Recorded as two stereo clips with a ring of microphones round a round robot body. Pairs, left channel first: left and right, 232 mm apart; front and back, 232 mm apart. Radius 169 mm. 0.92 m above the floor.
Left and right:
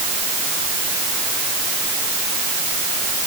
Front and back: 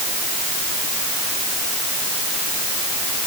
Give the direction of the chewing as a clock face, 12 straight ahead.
I don't hear chewing.